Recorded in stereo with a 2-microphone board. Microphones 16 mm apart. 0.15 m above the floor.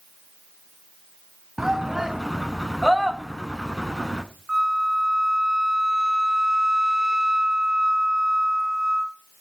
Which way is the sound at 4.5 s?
40° right (ahead or behind).